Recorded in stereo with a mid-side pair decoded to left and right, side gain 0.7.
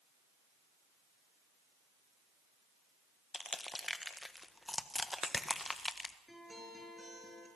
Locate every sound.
3.3 s crushing: 10° left, 1.3 m
6.3 s a guitar: 10° right, 6.5 m